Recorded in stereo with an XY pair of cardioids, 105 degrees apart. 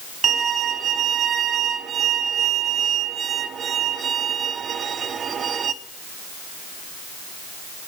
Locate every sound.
0.2 s a violin: 50° right, 0.7 m